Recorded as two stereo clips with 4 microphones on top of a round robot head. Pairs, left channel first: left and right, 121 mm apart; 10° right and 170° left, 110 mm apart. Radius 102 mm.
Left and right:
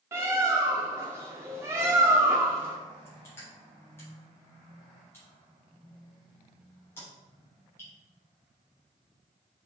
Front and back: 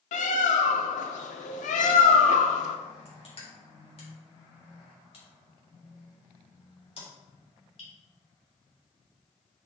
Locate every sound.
0.1 s a bird: 15° right, 0.8 m
3.0 s crushing: 15° left, 3.5 m